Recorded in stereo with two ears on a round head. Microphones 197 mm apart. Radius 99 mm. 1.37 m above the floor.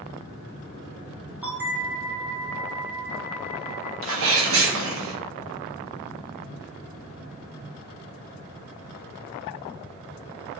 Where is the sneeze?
65° right (ahead or behind), 1.6 m.